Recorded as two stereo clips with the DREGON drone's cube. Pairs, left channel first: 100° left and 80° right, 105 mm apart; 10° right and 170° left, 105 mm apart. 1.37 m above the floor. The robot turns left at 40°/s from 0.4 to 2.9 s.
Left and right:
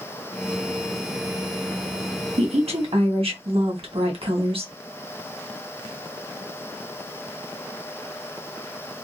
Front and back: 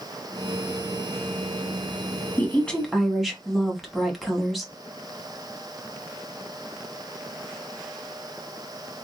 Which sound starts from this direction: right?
A woman speaking, at 2.4 s.